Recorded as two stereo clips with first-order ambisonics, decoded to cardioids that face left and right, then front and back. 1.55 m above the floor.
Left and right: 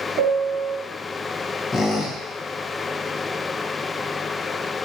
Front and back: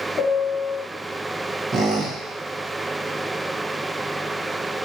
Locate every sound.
0.2 s a piano: 60° right, 0.7 m
1.7 s a squeak: 140° left, 0.7 m